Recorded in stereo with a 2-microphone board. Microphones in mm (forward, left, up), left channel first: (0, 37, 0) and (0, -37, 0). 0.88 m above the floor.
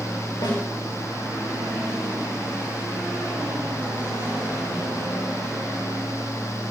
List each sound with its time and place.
0.4 s a snare drum: 75° left (ahead or behind), 4 m